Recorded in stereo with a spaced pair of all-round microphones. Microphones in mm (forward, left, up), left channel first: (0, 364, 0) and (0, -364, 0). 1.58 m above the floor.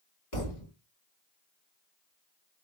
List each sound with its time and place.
0.3 s a thud: 65° left (ahead or behind), 1.9 m